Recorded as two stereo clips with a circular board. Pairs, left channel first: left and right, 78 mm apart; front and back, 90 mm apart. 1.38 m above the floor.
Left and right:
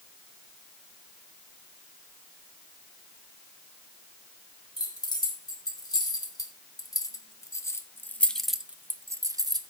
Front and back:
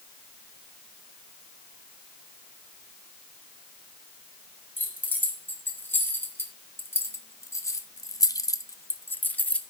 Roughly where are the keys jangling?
Left.